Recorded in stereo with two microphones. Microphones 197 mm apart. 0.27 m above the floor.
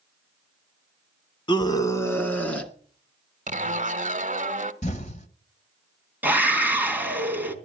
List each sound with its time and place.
1.5 s a scream: 25° left (ahead or behind), 2 m; by 2.7 s 5° left (ahead or behind), 3.5 m
3.5 s a zipper: 40° right (ahead or behind), 1.2 m
4.8 s an explosion: 35° left (ahead or behind), 1.5 m
6.2 s a scream: 10° right (ahead or behind), 3.5 m